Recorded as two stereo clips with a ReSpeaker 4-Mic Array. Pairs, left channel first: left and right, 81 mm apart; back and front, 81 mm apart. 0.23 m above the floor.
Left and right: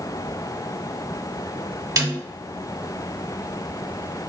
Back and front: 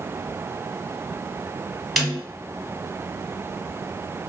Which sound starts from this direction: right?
A snare drum, at 2.0 s.